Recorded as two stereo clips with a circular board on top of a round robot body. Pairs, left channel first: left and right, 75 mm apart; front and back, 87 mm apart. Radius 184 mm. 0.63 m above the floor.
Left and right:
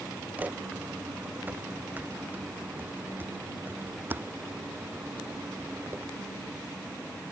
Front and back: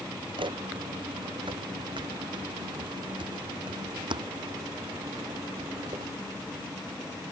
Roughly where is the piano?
I don't hear a piano.